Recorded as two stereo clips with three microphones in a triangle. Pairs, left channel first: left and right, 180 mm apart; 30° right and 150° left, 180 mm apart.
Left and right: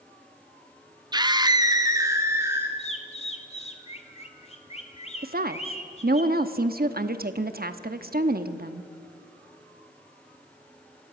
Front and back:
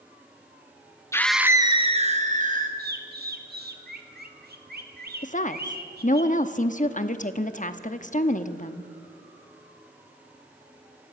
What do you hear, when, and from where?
1.1 s a scream: 75° right, 0.6 m; by 2.7 s 165° right, 1.7 m
2.8 s a bird: 140° left, 1.7 m
5.2 s a woman speaking: 70° right, 1.0 m